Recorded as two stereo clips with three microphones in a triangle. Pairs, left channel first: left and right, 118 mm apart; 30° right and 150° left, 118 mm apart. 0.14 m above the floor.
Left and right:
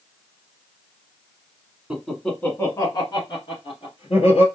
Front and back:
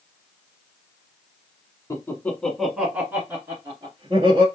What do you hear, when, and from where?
1.9 s laughter: 15° right, 1.2 m; by 4.5 s 105° left, 2 m